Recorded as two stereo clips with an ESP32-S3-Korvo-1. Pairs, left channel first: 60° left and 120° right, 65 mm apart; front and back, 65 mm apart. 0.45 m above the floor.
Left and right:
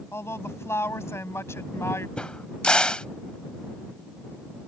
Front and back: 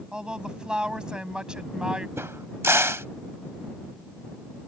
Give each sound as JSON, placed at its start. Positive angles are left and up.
{"t": 0.1, "sound": "a woman speaking", "azimuth_deg": 105}
{"t": 2.2, "sound": "a crack", "azimuth_deg": 135}